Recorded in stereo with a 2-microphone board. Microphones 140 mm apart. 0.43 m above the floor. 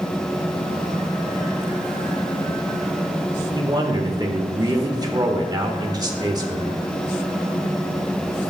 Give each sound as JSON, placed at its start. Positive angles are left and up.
{"t": 3.5, "sound": "a man speaking", "side_deg": -30, "distance_m": 1.5}